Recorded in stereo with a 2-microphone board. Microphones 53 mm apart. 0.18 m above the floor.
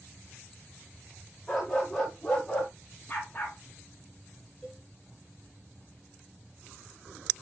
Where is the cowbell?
Centre (ahead or behind), 7 m.